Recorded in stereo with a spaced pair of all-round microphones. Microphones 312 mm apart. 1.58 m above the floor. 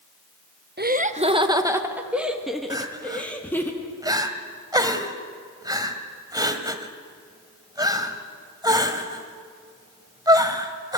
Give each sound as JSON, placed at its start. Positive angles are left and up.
{"t": 0.8, "sound": "laughter", "side_deg": -35, "distance_m": 1.1}
{"t": 2.7, "sound": "crying", "side_deg": -10, "distance_m": 1.6}